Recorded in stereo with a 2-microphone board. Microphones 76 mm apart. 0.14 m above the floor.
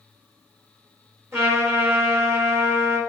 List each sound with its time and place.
1.3 s a trumpet: 35° right (ahead or behind), 3 m